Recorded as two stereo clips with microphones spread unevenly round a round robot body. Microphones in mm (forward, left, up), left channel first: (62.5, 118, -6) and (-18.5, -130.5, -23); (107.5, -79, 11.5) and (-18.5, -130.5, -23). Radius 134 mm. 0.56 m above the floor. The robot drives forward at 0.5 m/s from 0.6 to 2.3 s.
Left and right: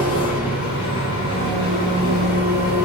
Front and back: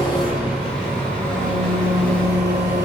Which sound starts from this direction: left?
An engine running, at 0.0 s.